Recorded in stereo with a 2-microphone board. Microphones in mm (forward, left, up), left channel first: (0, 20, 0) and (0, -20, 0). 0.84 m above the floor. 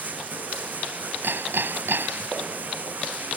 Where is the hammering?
70° right (ahead or behind).